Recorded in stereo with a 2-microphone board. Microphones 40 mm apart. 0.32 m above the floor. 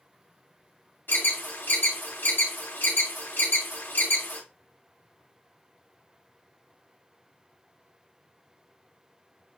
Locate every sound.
1.1 s an alarm: 60° left (ahead or behind), 1.9 m